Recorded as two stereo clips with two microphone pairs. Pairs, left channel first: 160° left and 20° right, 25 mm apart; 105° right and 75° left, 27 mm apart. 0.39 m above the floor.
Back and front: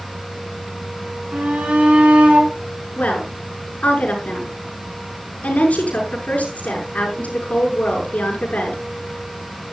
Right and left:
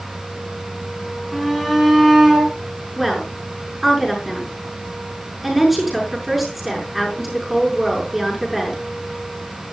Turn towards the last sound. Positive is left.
turn(degrees=160)